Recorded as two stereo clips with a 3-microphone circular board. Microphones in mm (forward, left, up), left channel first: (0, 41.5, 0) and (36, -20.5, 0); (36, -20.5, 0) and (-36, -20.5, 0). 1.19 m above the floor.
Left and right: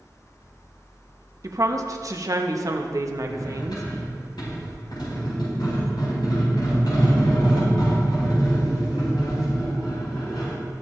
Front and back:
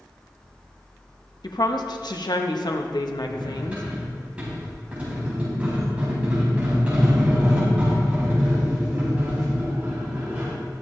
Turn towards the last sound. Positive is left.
turn(degrees=110)